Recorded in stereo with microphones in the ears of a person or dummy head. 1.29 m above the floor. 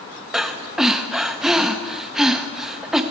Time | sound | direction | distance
0.3 | breathing | 10° right (ahead or behind) | 0.5 m